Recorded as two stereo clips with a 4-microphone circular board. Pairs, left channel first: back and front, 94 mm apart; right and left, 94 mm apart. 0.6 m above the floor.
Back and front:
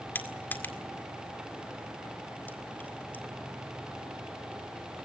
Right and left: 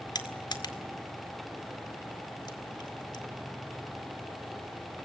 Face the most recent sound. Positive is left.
turn(degrees=-115)